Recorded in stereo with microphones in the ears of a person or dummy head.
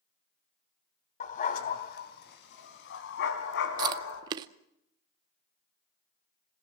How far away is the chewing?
About 0.7 m.